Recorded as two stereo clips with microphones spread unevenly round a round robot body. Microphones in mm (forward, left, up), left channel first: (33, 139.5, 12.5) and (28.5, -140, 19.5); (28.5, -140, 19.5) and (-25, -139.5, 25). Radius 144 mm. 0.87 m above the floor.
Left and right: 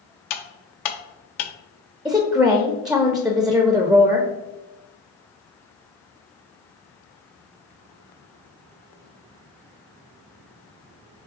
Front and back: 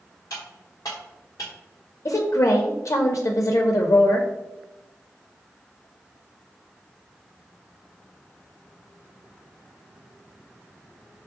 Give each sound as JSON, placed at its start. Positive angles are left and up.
{"t": 0.3, "sound": "cutlery clinking", "azimuth_deg": 70, "distance_m": 0.7}
{"t": 2.0, "sound": "a woman speaking", "azimuth_deg": 0, "distance_m": 0.6}